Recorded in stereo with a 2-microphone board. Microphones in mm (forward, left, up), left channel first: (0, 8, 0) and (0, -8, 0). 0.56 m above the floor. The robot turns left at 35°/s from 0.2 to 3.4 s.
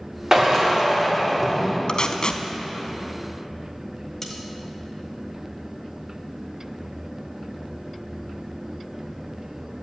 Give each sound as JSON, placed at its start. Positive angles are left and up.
{"t": 0.3, "sound": "a drill", "azimuth_deg": -130, "distance_m": 1.6}
{"t": 1.9, "sound": "tape being pulled", "side_deg": 50, "distance_m": 0.6}
{"t": 4.2, "sound": "cutlery clinking", "side_deg": 25, "distance_m": 1.5}